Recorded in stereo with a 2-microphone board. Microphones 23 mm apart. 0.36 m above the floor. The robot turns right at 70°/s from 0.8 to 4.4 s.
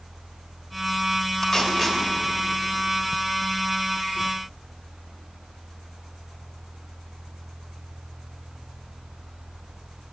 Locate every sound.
1.4 s tape being pulled: 25° left (ahead or behind), 1.4 m; by 2.0 s centre (ahead or behind), 1.4 m